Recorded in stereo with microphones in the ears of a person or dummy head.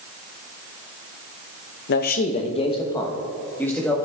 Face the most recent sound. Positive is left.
turn(degrees=0)  # may be behind; listen again after turning